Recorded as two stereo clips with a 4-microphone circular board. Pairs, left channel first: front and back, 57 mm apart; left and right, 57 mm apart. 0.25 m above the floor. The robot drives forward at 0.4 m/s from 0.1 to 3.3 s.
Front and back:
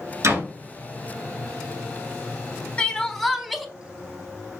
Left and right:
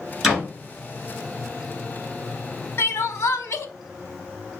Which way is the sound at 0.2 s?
Straight behind.